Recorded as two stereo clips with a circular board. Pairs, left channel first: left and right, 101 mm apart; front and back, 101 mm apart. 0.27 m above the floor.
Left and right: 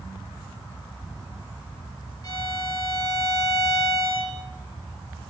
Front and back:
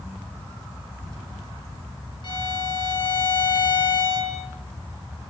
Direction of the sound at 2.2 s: 40° left.